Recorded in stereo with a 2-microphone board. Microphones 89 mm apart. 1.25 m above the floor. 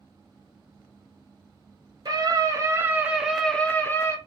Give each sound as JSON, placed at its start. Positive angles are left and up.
{"t": 2.0, "sound": "a scream", "side_deg": -50, "distance_m": 1.3}